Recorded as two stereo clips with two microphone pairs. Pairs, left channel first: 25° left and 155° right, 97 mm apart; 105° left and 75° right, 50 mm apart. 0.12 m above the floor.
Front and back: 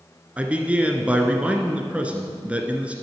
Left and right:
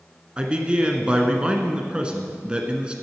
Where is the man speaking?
100° right, 1.1 m.